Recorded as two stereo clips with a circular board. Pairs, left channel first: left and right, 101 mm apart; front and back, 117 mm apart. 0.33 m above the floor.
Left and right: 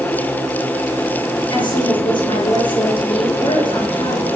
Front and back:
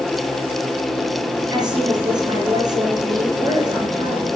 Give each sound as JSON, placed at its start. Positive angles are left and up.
{"t": 1.5, "sound": "a woman speaking", "azimuth_deg": 125, "distance_m": 5.5}